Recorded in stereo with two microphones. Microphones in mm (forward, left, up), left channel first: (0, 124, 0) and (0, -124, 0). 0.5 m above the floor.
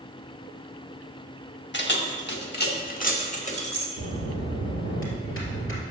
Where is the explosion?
No explosion in this recording.